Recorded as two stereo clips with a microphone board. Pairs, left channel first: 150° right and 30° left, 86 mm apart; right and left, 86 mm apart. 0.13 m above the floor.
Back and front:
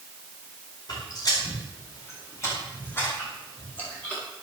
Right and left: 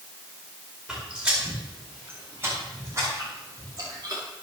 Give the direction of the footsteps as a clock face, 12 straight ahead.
6 o'clock.